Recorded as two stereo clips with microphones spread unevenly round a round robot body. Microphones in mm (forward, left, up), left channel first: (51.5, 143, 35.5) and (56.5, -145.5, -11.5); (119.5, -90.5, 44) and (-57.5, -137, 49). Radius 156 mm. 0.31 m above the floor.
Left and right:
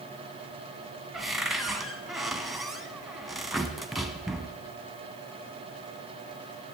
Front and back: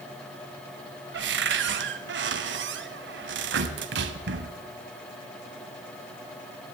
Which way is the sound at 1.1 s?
175° right.